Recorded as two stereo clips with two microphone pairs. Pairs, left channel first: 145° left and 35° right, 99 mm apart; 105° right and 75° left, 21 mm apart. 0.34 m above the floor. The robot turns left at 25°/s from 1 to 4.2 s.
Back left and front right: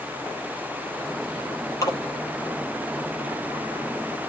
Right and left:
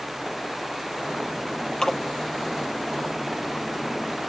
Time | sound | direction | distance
1.8 | a splash | 160° right | 7 m